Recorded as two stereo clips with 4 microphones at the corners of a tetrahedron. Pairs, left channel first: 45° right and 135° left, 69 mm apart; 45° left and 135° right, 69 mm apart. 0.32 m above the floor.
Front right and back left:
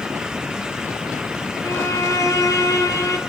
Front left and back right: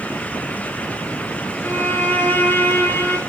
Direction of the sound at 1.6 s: 15° right.